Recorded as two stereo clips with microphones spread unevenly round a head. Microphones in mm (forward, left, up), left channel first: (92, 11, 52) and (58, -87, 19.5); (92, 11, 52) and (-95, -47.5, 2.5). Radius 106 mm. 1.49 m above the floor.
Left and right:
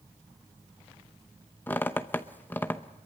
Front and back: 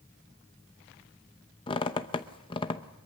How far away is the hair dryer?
No hair dryer in this recording.